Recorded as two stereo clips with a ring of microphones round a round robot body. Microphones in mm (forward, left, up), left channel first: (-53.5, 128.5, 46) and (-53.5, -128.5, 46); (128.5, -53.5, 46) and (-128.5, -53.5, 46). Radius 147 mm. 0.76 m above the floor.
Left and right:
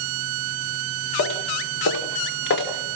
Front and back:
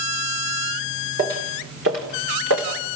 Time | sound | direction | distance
1.2 | footsteps | 120° left | 3.5 m